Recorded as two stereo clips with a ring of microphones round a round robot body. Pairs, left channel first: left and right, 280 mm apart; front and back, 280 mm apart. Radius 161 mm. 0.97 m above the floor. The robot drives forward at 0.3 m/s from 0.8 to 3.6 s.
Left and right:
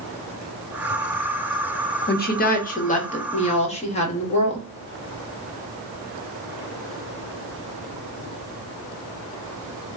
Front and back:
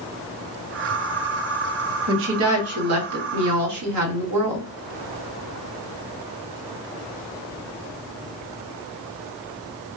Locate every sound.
2.1 s a woman speaking: 140° left, 0.8 m; by 4.7 s 155° left, 1.1 m